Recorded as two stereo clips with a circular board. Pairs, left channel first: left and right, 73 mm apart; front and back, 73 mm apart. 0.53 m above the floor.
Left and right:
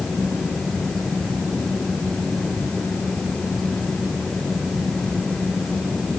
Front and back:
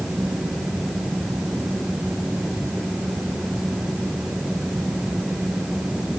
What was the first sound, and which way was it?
Only background noise.